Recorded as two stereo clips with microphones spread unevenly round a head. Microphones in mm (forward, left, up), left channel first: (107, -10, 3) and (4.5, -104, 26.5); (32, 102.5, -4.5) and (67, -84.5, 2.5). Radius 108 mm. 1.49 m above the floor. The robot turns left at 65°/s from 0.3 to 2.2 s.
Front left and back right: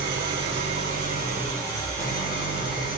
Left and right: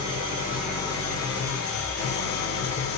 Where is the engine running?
150° right, 4 m; by 3.0 s 85° left, 4 m.